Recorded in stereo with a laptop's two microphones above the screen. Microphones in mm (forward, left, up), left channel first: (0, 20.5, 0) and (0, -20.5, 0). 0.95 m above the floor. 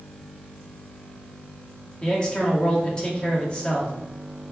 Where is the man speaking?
20° left (ahead or behind), 1.7 m.